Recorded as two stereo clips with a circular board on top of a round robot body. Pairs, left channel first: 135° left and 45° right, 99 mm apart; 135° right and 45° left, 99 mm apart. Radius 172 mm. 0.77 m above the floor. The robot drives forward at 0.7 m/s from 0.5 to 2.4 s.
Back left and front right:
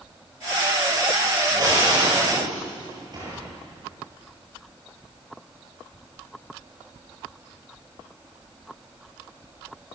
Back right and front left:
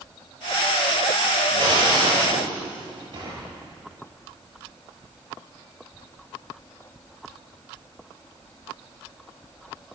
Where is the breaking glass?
5° left, 9.5 m.